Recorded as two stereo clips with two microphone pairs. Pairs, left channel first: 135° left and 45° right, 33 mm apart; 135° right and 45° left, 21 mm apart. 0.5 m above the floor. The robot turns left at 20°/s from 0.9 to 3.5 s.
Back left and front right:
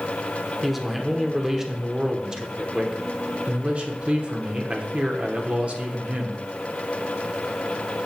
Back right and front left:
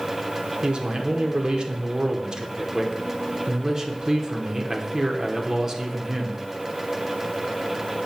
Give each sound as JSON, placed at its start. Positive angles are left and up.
{"t": 0.6, "sound": "a man speaking", "azimuth_deg": 45, "distance_m": 0.9}